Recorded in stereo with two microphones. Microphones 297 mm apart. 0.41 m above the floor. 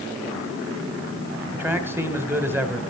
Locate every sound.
1.5 s a man speaking: 5° right (ahead or behind), 1.9 m